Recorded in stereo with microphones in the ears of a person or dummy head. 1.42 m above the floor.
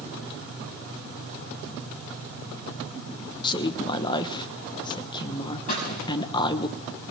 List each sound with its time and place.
3.4 s a woman speaking: 25° left (ahead or behind), 1.1 m
5.7 s a squeak: 45° left (ahead or behind), 4.5 m